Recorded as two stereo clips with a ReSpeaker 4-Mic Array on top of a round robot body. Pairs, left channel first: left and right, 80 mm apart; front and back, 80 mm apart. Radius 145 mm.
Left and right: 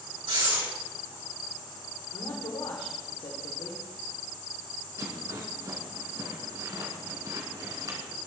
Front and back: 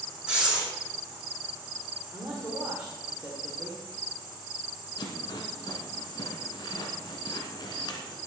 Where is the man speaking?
110° left, 2.5 m.